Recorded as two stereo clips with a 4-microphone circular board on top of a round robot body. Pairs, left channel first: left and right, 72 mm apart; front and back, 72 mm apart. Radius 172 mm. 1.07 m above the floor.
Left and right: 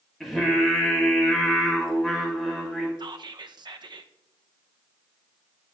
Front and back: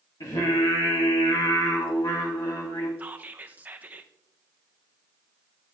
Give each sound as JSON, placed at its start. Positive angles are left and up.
{"t": 0.2, "sound": "singing", "azimuth_deg": 5, "distance_m": 3.0}
{"t": 3.0, "sound": "whispering", "azimuth_deg": -110, "distance_m": 0.8}